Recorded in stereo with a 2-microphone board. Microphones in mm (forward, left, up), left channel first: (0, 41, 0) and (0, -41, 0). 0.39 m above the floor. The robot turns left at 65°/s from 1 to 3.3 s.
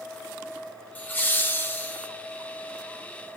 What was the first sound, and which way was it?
Laughter, 25° left (ahead or behind).